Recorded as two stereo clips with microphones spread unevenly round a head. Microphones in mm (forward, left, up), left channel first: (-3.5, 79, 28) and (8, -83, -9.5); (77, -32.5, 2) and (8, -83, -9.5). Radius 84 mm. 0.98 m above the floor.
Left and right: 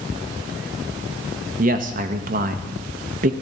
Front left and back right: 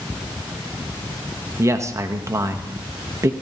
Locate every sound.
1.6 s a man speaking: 100° right, 1.0 m